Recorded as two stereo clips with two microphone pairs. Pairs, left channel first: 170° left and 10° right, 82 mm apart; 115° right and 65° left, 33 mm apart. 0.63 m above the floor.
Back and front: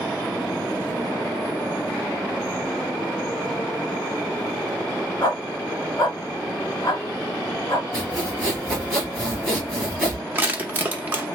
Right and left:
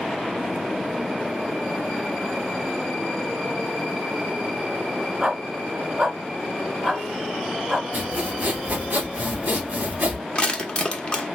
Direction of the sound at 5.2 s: 130° left.